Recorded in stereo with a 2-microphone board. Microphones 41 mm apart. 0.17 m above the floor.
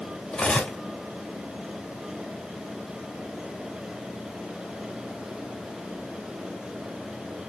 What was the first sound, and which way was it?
Cutlery clinking, 30° left (ahead or behind).